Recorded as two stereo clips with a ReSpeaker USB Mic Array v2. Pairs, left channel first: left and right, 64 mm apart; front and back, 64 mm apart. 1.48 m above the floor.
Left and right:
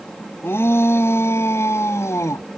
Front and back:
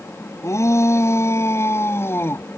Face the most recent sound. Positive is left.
turn(degrees=50)